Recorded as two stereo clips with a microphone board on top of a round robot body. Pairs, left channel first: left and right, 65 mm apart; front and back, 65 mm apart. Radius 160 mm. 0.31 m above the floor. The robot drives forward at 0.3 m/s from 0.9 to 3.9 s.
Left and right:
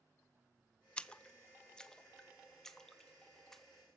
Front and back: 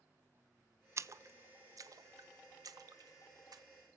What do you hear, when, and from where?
1.0 s a splash: 160° left, 0.6 m; by 3.6 s 175° left, 1.2 m